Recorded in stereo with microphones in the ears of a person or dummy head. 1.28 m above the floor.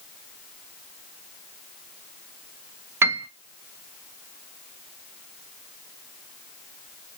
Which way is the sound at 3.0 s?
15° right (ahead or behind).